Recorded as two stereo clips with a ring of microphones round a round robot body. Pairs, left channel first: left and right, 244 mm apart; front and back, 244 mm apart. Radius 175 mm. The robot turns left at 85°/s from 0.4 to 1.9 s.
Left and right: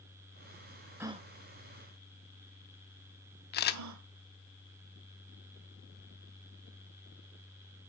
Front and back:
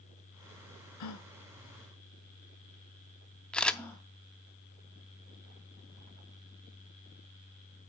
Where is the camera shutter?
85° left, 0.6 m.